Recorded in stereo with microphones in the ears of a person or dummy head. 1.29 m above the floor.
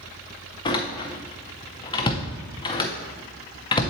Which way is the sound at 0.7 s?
25° left (ahead or behind).